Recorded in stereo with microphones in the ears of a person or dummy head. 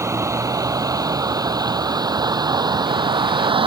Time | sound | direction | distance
0.0 | a vehicle | 10° right (ahead or behind) | ?